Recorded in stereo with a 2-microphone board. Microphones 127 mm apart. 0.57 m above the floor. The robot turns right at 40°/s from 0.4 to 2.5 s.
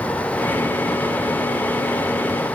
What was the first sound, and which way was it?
Only background noise.